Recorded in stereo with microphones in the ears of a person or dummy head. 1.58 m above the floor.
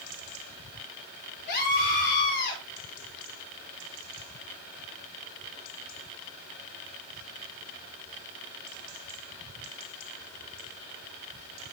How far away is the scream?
About 6 m.